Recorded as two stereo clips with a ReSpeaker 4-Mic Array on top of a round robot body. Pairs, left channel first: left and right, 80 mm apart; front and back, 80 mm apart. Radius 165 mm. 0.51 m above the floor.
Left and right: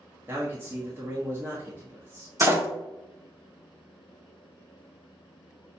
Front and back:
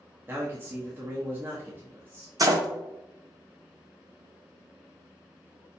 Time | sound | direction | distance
0.3 | a man speaking | 135° right | 1.5 m
2.4 | a door slam | 145° right | 1.2 m